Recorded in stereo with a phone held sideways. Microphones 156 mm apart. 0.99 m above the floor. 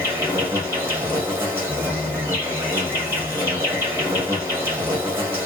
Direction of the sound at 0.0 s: 15° right (ahead or behind).